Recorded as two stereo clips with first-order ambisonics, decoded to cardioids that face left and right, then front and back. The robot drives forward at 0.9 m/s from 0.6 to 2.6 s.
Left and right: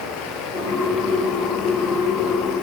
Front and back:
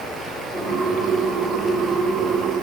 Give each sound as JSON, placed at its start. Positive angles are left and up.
{"t": 0.0, "sound": "running water", "azimuth_deg": 95, "distance_m": 8.5}